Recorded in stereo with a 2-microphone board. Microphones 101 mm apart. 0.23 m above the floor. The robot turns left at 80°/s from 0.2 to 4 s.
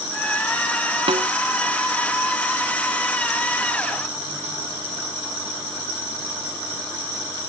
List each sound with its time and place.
1.1 s a snare drum: 65° right (ahead or behind); by 1.3 s 75° right (ahead or behind)